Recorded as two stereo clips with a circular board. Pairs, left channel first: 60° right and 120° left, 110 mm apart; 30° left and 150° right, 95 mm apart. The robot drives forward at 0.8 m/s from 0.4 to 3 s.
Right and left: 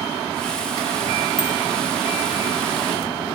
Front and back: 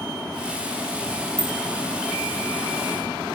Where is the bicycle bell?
30° left, 6.5 m.